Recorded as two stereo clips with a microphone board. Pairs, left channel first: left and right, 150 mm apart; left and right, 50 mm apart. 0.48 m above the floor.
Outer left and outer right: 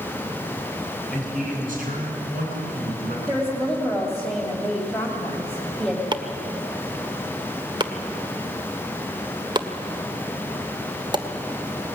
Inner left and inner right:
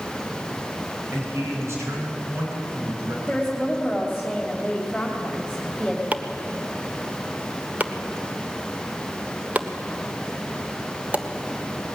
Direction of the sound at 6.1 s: 30° right (ahead or behind).